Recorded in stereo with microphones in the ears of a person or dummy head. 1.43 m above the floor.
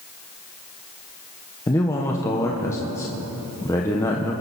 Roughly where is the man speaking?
Centre.